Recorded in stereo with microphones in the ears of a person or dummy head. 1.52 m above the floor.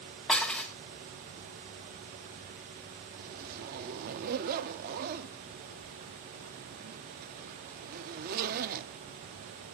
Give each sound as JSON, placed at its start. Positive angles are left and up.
{"t": 0.3, "sound": "dishes clattering", "side_deg": 5, "distance_m": 0.6}
{"t": 3.2, "sound": "a zipper", "side_deg": -50, "distance_m": 0.5}